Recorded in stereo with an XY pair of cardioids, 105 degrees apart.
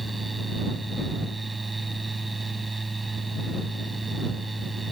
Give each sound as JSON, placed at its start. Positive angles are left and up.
{"t": 0.0, "sound": "a fan", "azimuth_deg": -20}